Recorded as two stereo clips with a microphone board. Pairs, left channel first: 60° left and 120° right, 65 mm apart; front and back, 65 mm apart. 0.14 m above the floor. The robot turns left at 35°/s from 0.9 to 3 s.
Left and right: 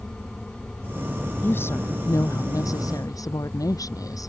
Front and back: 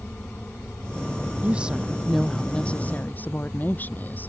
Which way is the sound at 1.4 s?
115° left.